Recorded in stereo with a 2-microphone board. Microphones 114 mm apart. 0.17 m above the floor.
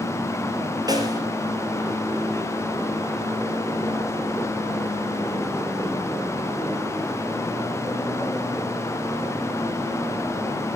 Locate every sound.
0.9 s a snare drum: 35° right (ahead or behind), 3 m